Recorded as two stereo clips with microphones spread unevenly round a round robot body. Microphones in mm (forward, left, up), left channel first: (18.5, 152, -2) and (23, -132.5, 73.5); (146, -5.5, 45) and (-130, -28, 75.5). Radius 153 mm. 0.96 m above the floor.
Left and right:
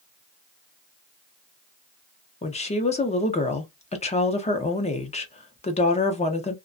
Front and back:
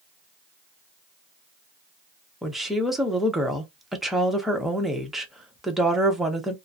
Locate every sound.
2.4 s a woman speaking: 85° left, 0.8 m